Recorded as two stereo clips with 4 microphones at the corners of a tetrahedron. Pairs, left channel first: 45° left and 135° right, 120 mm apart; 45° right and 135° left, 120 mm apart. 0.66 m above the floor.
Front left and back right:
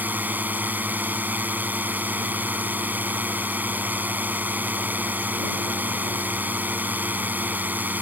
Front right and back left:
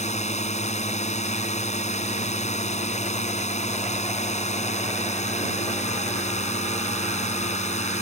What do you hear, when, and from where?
0.0 s a drone: 60° right